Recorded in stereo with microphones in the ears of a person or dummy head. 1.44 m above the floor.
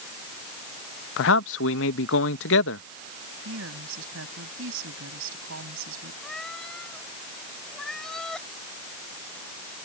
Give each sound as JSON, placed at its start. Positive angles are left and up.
{"t": 1.2, "sound": "a man speaking", "side_deg": 75}
{"t": 3.5, "sound": "a woman speaking", "side_deg": -85}
{"t": 6.2, "sound": "a cat meowing", "side_deg": 5}